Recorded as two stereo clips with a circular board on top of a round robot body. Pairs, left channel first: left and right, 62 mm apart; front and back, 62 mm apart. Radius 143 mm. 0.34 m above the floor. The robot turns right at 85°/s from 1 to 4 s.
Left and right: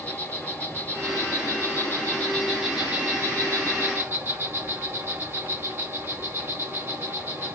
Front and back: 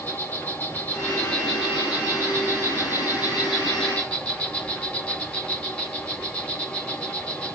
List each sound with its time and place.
0.0 s an insect: 45° left, 2.5 m; by 7.6 s 60° right, 2.5 m